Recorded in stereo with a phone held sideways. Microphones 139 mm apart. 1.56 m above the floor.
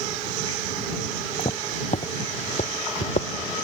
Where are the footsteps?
50° left (ahead or behind); by 3.3 s 65° left (ahead or behind).